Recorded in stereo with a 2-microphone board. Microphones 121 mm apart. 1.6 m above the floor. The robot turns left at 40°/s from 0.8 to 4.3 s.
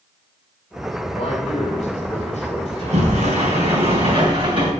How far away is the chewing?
I don't hear chewing.